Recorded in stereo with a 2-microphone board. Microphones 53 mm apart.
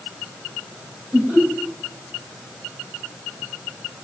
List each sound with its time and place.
1.1 s laughter: 15° right (ahead or behind), 3.5 m